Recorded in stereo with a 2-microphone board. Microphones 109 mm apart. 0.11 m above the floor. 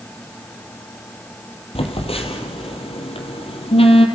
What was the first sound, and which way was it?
A phone buzzing, 60° left (ahead or behind).